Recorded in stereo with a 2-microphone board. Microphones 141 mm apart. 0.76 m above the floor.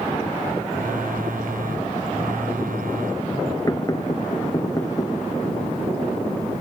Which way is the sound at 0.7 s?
75° right (ahead or behind).